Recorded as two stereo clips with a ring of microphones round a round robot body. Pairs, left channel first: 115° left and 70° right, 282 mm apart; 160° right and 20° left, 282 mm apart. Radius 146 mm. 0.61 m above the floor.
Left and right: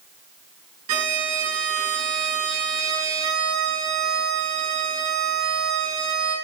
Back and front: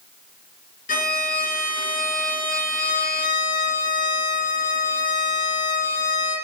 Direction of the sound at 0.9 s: 95° right.